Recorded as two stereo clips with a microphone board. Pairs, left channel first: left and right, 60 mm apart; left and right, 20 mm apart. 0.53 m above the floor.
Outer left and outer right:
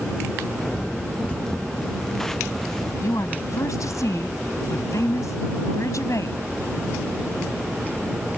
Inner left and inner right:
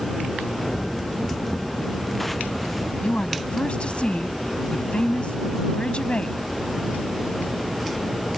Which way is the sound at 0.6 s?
10° left (ahead or behind).